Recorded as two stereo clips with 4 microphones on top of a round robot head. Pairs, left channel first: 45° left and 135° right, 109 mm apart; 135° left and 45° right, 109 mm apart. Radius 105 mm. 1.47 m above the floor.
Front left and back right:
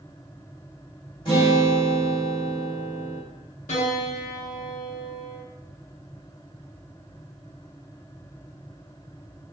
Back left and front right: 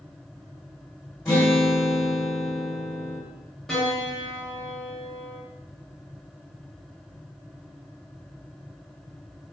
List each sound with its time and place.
1.2 s a guitar: 70° left, 0.8 m
3.7 s a piano: 45° left, 0.6 m